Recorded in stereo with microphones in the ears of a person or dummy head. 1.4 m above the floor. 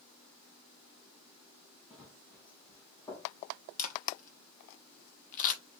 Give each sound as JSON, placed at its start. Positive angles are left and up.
{"t": 1.9, "sound": "running footsteps", "side_deg": 5, "distance_m": 3.0}
{"t": 3.8, "sound": "a camera shutter", "side_deg": 45, "distance_m": 1.2}